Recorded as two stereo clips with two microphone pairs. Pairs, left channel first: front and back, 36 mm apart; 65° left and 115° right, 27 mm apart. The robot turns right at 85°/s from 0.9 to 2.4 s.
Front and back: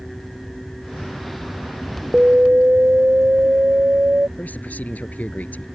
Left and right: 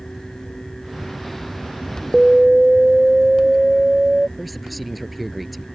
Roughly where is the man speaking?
Ahead right.